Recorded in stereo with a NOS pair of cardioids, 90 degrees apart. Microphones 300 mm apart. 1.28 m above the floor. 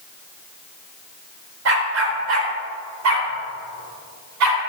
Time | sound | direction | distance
1.6 | a dog barking | 55° right | 2.5 m